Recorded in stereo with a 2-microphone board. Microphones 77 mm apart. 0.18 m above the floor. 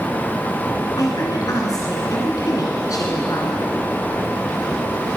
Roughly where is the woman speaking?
Left.